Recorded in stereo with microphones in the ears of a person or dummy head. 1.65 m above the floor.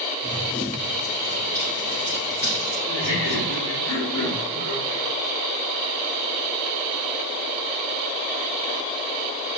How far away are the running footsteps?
About 5 m.